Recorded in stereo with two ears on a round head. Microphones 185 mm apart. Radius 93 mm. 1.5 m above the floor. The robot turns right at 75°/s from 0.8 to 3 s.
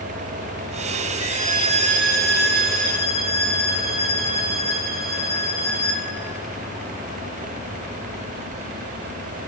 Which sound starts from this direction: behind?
A violin, at 1.3 s.